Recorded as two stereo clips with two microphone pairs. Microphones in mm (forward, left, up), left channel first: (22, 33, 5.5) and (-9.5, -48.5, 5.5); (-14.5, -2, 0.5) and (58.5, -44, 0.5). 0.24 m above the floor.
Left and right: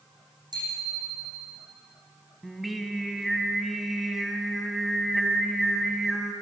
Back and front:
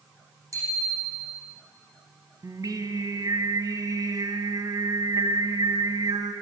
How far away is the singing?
About 1.4 m.